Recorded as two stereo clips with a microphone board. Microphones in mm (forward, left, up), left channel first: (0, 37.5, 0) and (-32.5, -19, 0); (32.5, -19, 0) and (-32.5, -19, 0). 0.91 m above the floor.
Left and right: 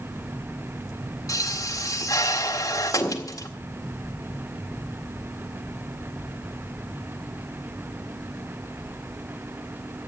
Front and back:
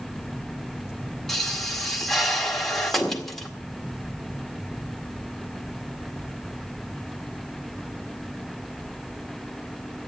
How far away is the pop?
About 1.8 m.